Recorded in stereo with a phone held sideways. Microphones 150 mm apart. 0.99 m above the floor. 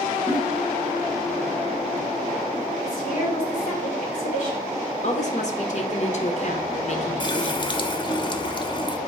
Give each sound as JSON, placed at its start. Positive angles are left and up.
{"t": 0.3, "sound": "a giggle", "side_deg": 0, "distance_m": 1.3}
{"t": 2.8, "sound": "a woman speaking", "side_deg": 55, "distance_m": 2.5}
{"t": 5.0, "sound": "a woman speaking", "side_deg": 50, "distance_m": 0.9}
{"t": 7.2, "sound": "a running tap", "side_deg": 30, "distance_m": 0.5}